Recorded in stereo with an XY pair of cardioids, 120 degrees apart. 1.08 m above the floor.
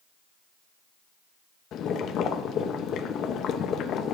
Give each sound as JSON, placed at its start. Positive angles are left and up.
{"t": 1.7, "sound": "boiling", "azimuth_deg": 60, "distance_m": 0.6}